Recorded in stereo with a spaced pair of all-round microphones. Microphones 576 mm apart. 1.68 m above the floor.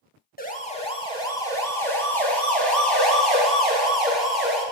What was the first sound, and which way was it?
A siren, 15° left (ahead or behind).